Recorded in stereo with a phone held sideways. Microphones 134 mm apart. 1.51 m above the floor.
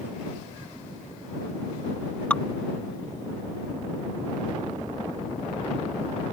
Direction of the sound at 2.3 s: 10° left (ahead or behind).